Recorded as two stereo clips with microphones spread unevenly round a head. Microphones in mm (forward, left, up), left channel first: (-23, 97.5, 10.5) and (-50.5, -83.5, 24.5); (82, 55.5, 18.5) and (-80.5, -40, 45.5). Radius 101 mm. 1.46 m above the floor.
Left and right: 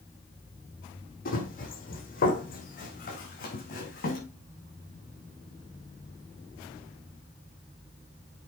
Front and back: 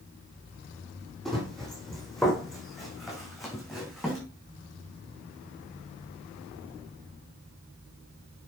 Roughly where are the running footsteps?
Behind left.